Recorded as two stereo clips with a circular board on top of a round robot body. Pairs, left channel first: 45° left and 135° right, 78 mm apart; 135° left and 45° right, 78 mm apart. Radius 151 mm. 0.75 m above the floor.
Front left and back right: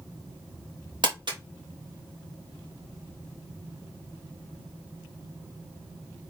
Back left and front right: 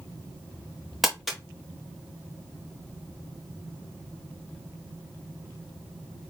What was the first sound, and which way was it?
Crumpling, 135° right.